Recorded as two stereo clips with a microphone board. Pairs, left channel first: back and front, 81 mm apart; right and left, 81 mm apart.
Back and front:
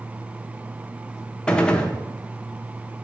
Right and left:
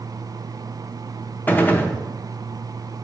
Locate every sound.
1.5 s a gunshot: 120° right, 0.6 m